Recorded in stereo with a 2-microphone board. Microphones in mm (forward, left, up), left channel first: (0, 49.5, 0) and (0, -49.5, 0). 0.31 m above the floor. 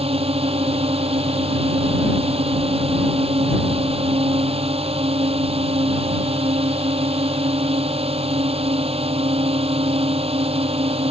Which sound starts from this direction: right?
A drone, at 0.0 s.